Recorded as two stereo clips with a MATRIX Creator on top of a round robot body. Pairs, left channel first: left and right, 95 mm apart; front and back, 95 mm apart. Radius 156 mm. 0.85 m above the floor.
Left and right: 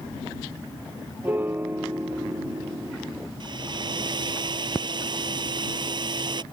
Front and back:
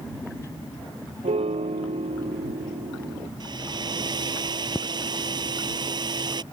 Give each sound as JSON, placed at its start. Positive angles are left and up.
{"t": 1.2, "sound": "a piano", "azimuth_deg": -160}
{"t": 3.4, "sound": "a hair dryer", "azimuth_deg": -135}